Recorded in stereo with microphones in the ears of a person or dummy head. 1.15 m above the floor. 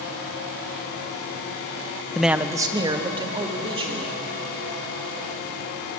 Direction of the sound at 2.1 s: 5° left (ahead or behind).